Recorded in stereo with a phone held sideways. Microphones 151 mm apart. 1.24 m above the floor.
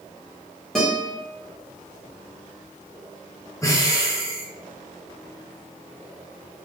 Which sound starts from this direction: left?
Breathing, at 3.6 s.